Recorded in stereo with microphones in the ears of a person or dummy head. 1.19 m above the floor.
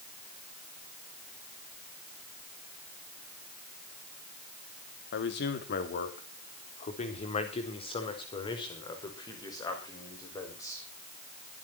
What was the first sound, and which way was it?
A man speaking, 60° left (ahead or behind).